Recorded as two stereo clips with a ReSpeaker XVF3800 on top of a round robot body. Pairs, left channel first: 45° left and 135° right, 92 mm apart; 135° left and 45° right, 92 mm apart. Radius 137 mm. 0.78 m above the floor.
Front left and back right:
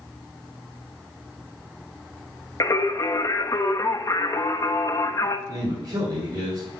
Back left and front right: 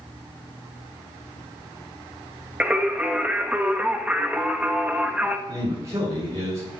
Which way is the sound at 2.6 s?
25° left.